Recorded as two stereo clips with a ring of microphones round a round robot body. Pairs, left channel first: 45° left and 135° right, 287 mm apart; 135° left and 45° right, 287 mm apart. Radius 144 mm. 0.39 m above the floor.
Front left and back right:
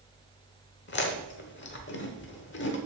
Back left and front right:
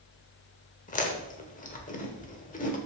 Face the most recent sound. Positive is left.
turn(degrees=80)